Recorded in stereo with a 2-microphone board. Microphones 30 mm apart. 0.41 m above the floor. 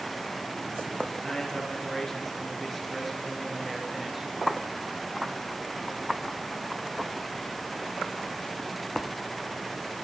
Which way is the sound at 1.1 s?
20° left (ahead or behind).